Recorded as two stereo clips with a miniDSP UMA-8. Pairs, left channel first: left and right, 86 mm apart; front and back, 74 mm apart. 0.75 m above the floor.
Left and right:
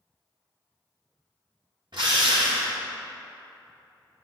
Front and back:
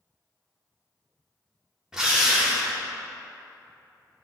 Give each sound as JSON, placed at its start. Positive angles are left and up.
{"t": 1.9, "sound": "a drill", "azimuth_deg": -100, "distance_m": 1.3}